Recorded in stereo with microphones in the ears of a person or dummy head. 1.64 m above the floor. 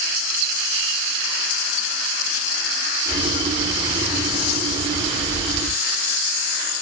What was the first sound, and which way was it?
Boiling, 25° right (ahead or behind).